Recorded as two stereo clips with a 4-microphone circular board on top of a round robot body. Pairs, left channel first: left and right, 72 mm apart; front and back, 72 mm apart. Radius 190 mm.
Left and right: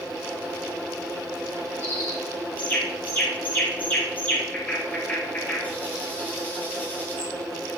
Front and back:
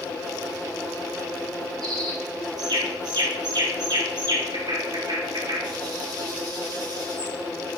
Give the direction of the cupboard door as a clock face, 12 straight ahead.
I don't hear a cupboard door.